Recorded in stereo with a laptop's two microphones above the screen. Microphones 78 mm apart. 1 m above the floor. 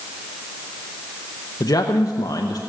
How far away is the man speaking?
About 0.9 m.